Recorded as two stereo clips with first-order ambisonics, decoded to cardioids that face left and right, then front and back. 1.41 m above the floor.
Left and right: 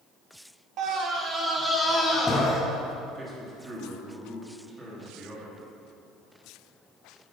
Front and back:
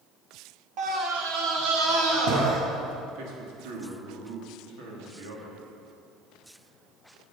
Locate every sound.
0.8 s a scream: 135° right, 1.4 m; by 2.6 s 165° left, 2.5 m
3.1 s a man speaking: 165° right, 2.5 m